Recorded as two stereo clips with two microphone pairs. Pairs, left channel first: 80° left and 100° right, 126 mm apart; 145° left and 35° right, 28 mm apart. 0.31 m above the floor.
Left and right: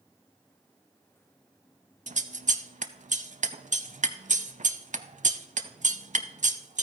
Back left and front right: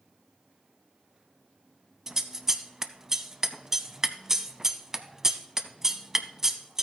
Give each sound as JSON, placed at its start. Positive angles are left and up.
{"t": 2.1, "sound": "scissors", "azimuth_deg": -110, "distance_m": 0.6}